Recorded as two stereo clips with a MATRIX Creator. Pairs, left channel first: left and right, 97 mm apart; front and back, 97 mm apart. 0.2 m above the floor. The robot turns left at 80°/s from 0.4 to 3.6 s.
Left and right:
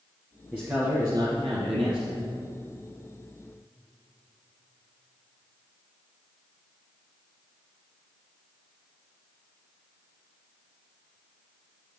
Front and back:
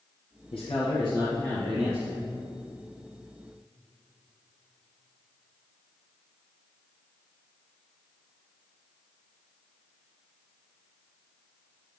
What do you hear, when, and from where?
0.5 s a man speaking: 10° right, 2.5 m; by 2.3 s 150° right, 2.5 m